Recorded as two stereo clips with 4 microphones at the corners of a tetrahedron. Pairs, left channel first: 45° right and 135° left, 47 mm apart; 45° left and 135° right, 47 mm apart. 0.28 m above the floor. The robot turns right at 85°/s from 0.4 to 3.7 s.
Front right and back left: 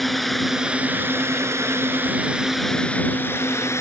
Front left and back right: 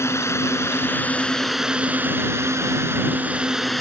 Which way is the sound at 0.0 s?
40° left.